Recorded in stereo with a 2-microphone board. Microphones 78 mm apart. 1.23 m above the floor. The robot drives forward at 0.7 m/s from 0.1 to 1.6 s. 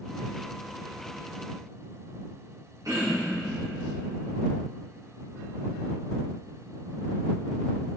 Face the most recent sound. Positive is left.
turn(degrees=-50)  # may be behind; listen again after turning